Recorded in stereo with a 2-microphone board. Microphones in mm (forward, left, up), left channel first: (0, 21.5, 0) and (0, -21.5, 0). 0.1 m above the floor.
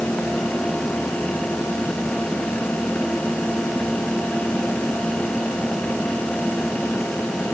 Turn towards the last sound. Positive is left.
No sound to turn to.